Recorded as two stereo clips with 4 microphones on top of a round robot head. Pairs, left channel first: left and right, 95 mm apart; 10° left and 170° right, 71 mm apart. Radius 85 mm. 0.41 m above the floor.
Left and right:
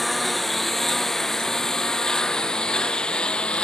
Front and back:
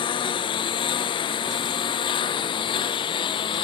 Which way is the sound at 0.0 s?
Straight ahead.